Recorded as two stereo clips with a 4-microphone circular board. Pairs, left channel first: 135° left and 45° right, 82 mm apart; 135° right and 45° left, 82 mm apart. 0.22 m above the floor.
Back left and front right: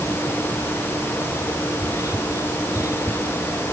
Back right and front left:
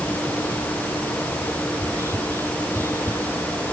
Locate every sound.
1.7 s whispering: 95° left